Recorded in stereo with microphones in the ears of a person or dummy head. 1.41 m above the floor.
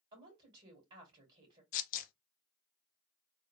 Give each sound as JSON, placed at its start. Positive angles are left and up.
{"t": 0.1, "sound": "a woman speaking", "side_deg": -30, "distance_m": 2.0}
{"t": 1.7, "sound": "tearing paper", "side_deg": 50, "distance_m": 0.7}